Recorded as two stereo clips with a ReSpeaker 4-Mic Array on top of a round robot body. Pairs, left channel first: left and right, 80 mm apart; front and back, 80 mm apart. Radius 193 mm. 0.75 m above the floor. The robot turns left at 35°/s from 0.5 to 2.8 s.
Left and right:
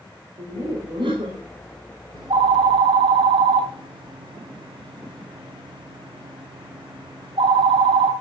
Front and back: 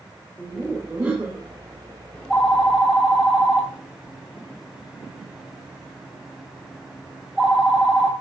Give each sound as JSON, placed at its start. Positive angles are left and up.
{"t": 0.4, "sound": "laughter", "azimuth_deg": -85, "distance_m": 4.0}
{"t": 2.1, "sound": "a phone ringing", "azimuth_deg": -75, "distance_m": 3.5}